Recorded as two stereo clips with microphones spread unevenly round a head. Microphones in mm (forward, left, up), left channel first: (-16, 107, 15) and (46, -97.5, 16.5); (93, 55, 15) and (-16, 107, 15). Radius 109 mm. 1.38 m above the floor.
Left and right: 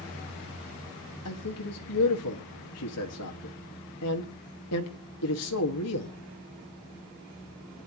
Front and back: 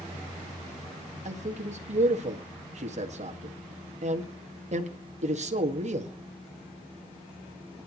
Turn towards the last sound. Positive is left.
turn(degrees=130)